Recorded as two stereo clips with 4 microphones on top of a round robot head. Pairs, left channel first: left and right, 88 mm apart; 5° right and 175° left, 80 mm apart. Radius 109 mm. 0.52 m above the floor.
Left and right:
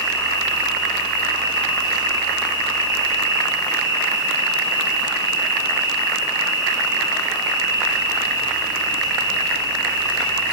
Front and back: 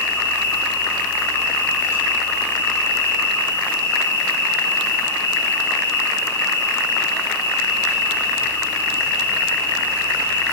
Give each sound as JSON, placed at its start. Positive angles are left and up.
{"t": 0.0, "sound": "an insect", "azimuth_deg": 50, "distance_m": 6.5}